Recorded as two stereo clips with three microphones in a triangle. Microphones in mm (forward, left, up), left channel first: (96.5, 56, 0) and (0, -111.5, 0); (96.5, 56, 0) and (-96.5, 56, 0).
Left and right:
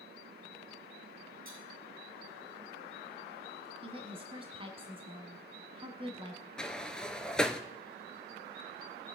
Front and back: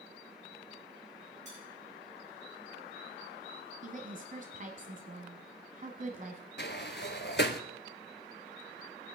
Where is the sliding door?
25° right, 0.9 m.